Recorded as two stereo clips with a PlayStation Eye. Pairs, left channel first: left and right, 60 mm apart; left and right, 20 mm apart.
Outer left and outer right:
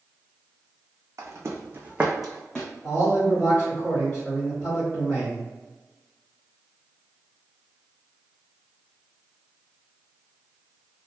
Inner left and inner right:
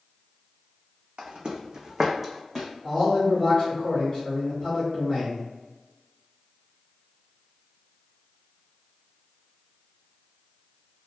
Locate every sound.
1.2 s footsteps: 60° right (ahead or behind), 0.7 m; by 2.7 s 15° left (ahead or behind), 0.7 m
2.8 s a man speaking: 25° left (ahead or behind), 1.8 m